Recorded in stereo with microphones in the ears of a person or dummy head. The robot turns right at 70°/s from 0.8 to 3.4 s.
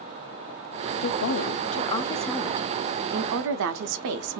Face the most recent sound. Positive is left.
turn(degrees=-100)